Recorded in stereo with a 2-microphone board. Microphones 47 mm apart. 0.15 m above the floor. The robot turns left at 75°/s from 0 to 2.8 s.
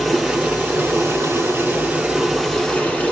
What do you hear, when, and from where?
0.0 s running water: 5° left, 3.5 m; by 3.1 s 155° left, 3.5 m